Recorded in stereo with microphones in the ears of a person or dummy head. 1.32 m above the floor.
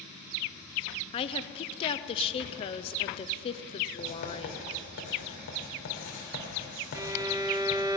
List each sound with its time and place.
1.1 s a woman speaking: 30° left (ahead or behind), 0.5 m
4.0 s writing: 65° left (ahead or behind), 2.5 m
7.0 s a violin: 15° right (ahead or behind), 0.6 m